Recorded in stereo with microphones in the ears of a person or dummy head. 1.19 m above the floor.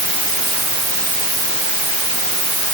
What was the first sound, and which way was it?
Only background noise.